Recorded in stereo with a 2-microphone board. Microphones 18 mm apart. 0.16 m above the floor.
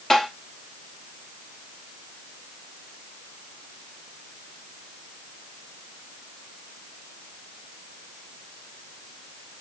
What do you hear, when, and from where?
0.1 s tapping: 20° left (ahead or behind), 1.7 m